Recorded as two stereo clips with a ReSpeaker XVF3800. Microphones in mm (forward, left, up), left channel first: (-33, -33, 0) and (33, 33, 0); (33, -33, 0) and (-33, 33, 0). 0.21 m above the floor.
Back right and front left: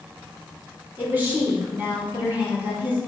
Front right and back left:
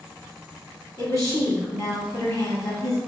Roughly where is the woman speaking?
Ahead.